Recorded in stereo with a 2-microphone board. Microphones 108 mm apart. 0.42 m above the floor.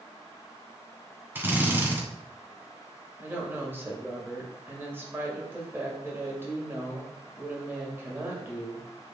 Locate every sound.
1.4 s a drill: 20° right (ahead or behind), 1.5 m
3.2 s a woman speaking: 20° right (ahead or behind), 2 m